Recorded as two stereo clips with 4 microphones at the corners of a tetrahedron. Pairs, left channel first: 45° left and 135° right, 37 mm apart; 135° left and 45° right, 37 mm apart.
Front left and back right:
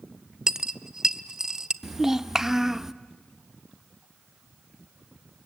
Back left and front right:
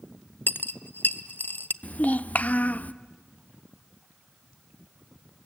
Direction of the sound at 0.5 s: 155° left.